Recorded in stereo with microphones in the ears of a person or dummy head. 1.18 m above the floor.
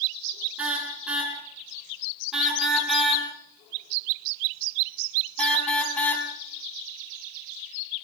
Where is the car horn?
10° right (ahead or behind), 7.5 m; by 6.3 s 10° left (ahead or behind), 4.5 m.